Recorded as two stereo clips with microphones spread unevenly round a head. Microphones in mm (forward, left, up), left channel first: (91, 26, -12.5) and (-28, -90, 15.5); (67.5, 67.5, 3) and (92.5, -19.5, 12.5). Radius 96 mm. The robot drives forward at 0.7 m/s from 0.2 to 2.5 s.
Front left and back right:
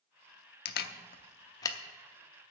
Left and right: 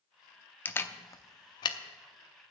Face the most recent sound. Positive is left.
turn(degrees=155)